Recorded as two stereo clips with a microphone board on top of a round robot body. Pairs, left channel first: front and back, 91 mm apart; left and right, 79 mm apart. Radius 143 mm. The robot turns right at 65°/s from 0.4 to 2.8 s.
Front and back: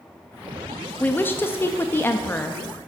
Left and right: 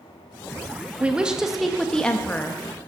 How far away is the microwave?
I don't hear a microwave.